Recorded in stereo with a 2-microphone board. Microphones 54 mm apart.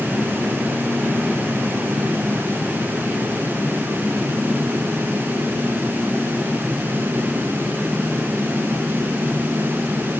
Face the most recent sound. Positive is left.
No sound to turn to.